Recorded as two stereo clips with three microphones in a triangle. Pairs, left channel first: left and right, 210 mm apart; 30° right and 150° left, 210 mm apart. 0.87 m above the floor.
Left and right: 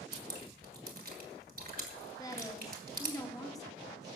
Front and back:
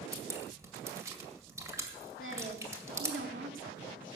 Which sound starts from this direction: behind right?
Dripping, at 0.1 s.